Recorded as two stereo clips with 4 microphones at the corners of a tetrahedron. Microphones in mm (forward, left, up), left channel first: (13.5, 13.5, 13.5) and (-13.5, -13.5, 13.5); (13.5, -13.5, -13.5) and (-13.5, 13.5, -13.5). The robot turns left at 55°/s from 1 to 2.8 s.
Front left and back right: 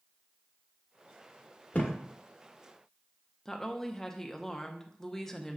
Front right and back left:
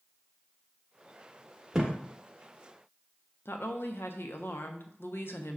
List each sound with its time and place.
1.7 s a thud: 55° left, 1.0 m; by 2.0 s 45° left, 1.0 m
3.5 s a woman speaking: 35° right, 0.6 m